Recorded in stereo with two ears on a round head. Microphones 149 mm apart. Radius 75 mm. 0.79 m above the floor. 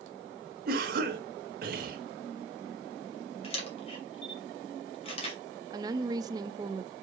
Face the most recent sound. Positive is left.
turn(degrees=-25)  # may be behind; listen again after turning